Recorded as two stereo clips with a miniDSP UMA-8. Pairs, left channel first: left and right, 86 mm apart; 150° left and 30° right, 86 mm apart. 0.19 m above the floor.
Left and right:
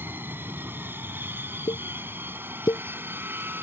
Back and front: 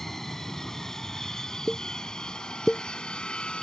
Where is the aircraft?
130° right; by 3.6 s 140° right.